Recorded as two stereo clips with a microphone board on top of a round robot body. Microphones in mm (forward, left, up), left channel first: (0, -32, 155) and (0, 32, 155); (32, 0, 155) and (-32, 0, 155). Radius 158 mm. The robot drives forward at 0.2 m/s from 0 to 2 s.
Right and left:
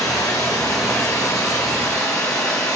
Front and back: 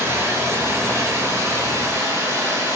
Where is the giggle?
No giggle in this recording.